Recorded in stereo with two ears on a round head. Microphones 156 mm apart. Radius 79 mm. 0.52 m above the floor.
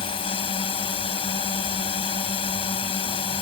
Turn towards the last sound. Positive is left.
turn(degrees=30)  # may be behind; listen again after turning